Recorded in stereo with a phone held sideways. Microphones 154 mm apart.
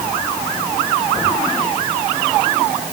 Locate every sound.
Only background noise.